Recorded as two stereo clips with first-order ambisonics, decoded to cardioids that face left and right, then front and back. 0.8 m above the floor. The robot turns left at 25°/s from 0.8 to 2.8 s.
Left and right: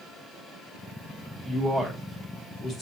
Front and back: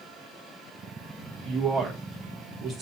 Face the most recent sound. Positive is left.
turn(degrees=140)